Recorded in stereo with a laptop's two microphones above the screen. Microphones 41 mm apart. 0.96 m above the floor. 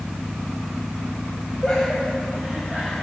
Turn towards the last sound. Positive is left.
turn(degrees=0)  # may be behind; listen again after turning